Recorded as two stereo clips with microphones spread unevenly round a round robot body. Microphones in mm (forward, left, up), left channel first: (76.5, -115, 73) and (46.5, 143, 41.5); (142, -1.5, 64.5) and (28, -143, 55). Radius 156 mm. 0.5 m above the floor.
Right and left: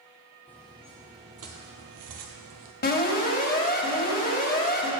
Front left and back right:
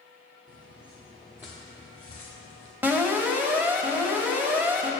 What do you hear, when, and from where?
0.5 s footsteps: straight behind, 1.3 m; by 2.7 s 85° left, 1.2 m
2.8 s an alarm: 60° right, 1.8 m